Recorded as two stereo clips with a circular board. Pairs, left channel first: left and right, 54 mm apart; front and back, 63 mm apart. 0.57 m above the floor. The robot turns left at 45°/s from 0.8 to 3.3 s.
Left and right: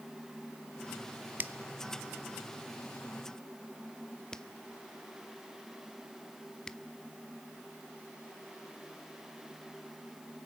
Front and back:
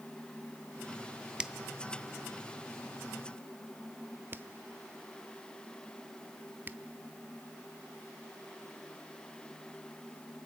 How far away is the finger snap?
About 0.5 m.